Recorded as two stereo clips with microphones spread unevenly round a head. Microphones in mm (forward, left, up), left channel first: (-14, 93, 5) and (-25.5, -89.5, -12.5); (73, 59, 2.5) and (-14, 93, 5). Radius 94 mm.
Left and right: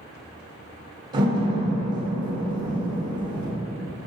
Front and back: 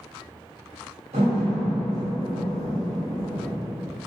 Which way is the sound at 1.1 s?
165° right.